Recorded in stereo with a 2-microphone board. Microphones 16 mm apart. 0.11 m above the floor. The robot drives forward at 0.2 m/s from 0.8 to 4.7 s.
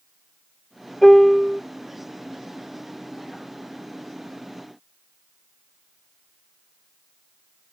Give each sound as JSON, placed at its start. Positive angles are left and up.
{"t": 1.0, "sound": "a piano", "side_deg": 0, "distance_m": 1.3}